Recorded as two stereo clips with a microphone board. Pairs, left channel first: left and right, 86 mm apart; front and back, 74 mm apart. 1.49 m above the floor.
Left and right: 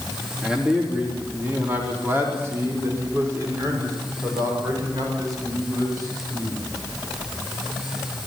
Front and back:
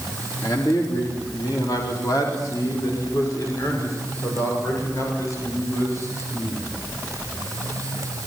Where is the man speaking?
10° right, 3 m; by 6.6 s 50° right, 8 m.